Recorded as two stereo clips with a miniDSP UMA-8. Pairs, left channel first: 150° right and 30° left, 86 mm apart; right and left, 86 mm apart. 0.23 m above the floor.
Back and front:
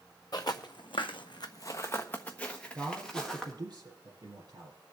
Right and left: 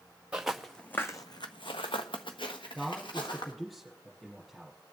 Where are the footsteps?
170° left, 1.4 m; by 3.5 s 65° right, 3 m.